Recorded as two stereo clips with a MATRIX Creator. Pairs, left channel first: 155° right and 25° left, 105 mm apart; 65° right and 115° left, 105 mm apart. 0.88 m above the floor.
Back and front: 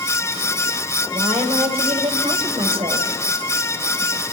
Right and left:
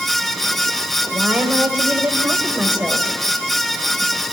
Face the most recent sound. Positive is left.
turn(degrees=35)